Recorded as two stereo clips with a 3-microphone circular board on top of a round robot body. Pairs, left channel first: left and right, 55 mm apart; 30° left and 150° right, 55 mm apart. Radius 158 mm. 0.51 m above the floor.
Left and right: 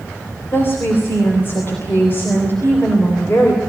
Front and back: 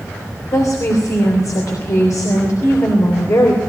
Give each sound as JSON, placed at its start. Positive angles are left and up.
{"t": 0.5, "sound": "a woman speaking", "azimuth_deg": 40, "distance_m": 3.5}